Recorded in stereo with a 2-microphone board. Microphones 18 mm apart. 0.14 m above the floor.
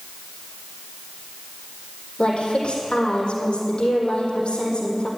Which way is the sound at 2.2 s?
60° left (ahead or behind).